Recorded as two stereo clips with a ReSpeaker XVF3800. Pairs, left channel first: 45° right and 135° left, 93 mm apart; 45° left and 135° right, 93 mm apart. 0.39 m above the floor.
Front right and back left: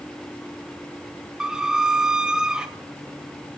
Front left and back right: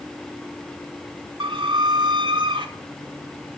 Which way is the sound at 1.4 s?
145° right.